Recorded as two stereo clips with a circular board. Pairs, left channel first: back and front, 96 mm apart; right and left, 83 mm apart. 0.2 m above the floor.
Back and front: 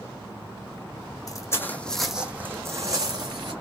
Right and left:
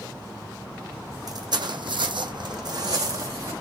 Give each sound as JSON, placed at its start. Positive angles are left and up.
{"t": 1.3, "sound": "footsteps", "azimuth_deg": 130, "distance_m": 0.7}